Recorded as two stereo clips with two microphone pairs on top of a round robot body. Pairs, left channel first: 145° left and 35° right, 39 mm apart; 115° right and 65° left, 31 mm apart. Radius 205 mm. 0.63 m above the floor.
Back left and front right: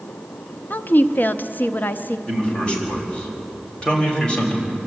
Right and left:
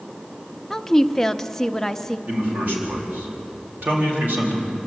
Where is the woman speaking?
170° left, 1.0 m.